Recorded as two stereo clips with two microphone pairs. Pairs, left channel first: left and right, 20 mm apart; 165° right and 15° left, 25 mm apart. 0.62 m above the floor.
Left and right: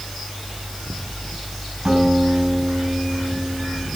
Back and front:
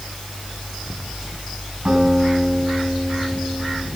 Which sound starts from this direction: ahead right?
A guitar, at 1.9 s.